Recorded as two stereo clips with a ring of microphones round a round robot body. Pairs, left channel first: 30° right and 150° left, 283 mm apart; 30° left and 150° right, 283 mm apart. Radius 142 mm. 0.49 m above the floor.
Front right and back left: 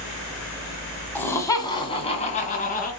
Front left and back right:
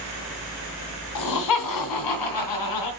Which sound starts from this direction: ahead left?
Laughter, at 1.1 s.